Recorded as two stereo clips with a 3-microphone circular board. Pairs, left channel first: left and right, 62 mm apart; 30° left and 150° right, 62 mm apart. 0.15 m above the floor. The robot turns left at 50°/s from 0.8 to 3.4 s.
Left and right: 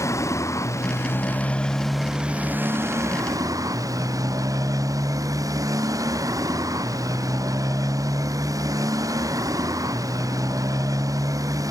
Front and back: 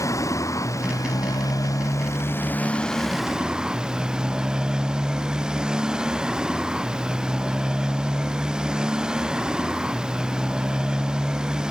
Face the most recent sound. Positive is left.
turn(degrees=-75)